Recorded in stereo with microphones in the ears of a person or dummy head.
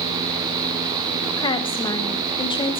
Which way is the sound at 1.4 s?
25° left (ahead or behind).